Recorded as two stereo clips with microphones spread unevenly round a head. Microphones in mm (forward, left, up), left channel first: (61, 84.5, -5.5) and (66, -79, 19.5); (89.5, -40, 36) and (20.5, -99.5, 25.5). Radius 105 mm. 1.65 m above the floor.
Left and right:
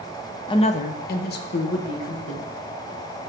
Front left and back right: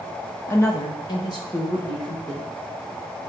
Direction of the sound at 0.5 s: 40° left.